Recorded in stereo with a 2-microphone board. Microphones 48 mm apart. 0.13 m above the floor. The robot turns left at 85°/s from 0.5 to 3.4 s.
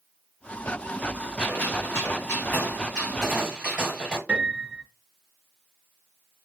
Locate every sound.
1.4 s a gunshot: 150° left, 3 m; by 4.2 s 20° right, 3 m
4.3 s a piano: 30° right (ahead or behind), 1.5 m